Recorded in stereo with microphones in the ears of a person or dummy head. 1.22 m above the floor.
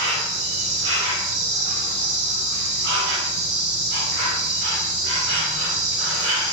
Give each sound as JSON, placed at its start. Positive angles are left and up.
{"t": 0.0, "sound": "an insect", "side_deg": -70, "distance_m": 0.7}